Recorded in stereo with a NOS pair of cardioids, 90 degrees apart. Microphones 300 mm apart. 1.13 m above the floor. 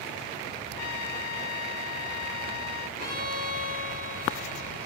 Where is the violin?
25° left, 5 m.